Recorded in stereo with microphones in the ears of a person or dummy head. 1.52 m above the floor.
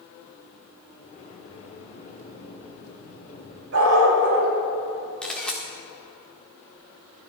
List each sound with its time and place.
1.0 s a sliding door: 45° left (ahead or behind), 2.5 m
3.7 s a dog barking: 80° right, 4.5 m
5.2 s a camera shutter: 5° left (ahead or behind), 1.6 m